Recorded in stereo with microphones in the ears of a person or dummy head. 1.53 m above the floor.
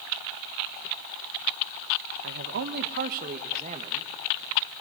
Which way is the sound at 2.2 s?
70° right (ahead or behind).